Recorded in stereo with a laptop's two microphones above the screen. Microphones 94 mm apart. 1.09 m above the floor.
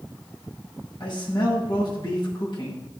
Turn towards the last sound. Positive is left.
turn(degrees=60)  # may be behind; listen again after turning